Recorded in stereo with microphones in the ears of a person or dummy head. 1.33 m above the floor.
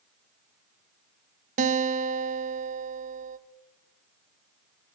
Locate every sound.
1.6 s a guitar: 40° right (ahead or behind), 1.6 m